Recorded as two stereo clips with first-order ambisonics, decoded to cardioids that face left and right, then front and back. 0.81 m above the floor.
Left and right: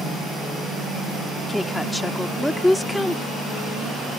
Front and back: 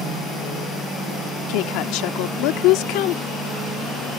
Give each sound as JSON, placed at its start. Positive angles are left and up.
{"t": 1.5, "sound": "a woman speaking", "azimuth_deg": 5}